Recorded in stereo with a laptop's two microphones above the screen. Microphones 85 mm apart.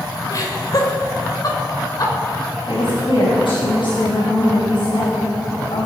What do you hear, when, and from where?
0.3 s laughter: 50° left (ahead or behind), 4.5 m
2.7 s a woman speaking: 85° left, 5 m